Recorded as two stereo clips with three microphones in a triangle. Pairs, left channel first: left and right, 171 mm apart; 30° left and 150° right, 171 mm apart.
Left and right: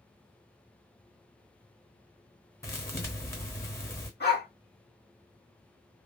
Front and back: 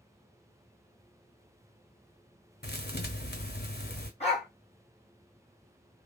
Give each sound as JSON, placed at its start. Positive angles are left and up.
{"t": 2.6, "sound": "a thud", "azimuth_deg": 15, "distance_m": 0.7}
{"t": 4.2, "sound": "a dog barking", "azimuth_deg": 80, "distance_m": 1.7}